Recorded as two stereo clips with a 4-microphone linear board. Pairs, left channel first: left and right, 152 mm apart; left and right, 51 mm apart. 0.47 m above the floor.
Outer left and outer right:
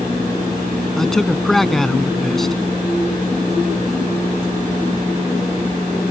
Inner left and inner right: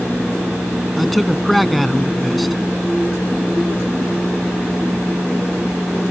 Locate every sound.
1.0 s a man speaking: centre (ahead or behind)